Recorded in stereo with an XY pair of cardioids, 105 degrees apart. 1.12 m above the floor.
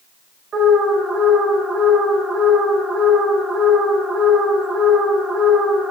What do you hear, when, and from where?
0.5 s an alarm: 60° right, 2 m